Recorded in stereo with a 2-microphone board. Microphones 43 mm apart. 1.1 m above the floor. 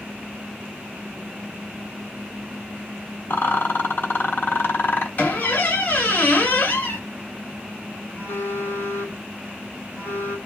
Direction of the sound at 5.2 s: 45° left (ahead or behind).